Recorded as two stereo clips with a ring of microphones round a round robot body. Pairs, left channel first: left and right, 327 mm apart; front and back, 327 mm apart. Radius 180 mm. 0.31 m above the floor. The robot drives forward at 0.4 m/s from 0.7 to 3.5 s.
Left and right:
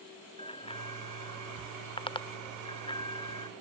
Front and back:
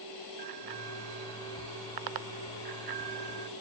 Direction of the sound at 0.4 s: 165° left.